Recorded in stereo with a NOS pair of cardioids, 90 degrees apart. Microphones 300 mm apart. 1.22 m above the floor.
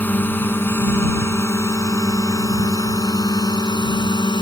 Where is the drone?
5° left; by 4.4 s 15° left.